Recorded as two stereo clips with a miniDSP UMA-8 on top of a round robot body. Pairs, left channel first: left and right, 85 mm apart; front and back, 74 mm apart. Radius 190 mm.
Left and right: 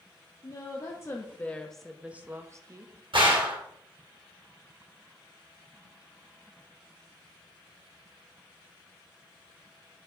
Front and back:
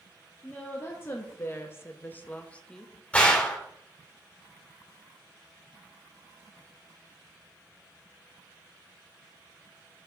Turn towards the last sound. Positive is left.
turn(degrees=-75)